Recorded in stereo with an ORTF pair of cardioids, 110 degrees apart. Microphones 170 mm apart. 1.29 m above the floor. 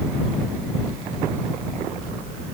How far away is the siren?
I don't hear a siren.